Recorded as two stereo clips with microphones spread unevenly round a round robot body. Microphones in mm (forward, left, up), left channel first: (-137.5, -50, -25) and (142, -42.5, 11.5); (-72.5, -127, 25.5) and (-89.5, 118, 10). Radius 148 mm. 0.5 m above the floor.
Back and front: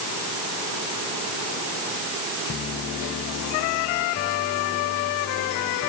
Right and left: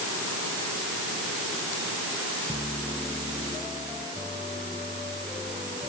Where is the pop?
I don't hear a pop.